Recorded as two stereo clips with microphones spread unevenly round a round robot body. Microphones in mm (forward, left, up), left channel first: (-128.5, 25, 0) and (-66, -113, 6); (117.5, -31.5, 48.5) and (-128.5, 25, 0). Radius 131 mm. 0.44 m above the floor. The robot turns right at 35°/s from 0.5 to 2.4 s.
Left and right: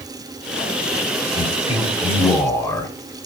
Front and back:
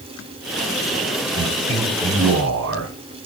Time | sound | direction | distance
1.4 | a man speaking | 150° left | 2.0 m